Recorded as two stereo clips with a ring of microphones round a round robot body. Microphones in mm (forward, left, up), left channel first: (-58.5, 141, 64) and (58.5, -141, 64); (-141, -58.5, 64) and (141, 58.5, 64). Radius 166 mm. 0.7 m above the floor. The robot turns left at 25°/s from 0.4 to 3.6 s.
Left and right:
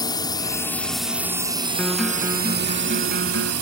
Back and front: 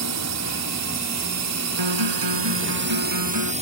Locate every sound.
0.0 s a drone: 35° left; by 3.6 s 45° right
1.8 s a guitar: 25° left; by 3.5 s 15° right